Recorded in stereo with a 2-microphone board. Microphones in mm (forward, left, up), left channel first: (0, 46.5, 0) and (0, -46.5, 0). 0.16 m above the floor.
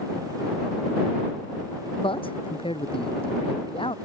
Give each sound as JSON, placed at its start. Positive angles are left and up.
{"t": 2.0, "sound": "a man speaking", "side_deg": 80}